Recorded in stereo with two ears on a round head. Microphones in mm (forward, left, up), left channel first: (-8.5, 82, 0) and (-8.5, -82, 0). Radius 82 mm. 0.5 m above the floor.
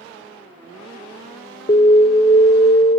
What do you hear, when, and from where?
1.7 s an alarm: 35° left (ahead or behind), 1.0 m